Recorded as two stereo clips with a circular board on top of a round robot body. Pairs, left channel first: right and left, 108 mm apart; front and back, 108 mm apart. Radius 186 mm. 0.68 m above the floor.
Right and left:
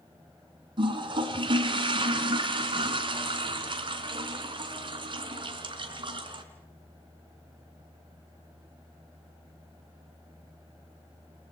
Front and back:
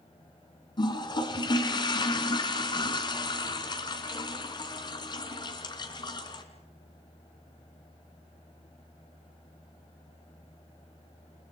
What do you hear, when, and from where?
0.8 s a toilet flushing: 45° left, 3 m